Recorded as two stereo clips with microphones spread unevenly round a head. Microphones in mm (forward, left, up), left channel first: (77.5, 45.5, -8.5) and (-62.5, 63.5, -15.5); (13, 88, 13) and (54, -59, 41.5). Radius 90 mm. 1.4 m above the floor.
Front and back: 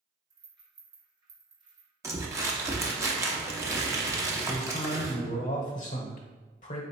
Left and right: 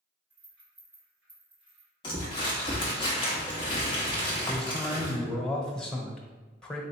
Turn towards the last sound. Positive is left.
turn(degrees=25)